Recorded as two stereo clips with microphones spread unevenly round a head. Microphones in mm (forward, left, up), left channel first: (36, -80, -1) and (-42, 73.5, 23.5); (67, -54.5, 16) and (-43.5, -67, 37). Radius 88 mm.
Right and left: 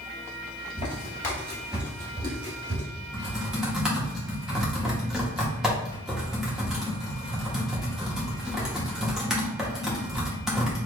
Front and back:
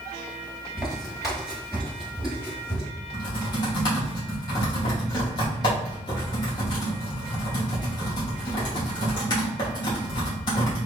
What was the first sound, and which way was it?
Footsteps, 110° right.